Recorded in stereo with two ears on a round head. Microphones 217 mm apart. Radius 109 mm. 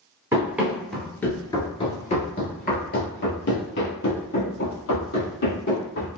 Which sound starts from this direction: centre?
Running footsteps, at 0.3 s.